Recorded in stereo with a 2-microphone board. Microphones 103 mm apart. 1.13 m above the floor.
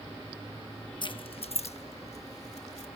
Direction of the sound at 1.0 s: 45° left (ahead or behind).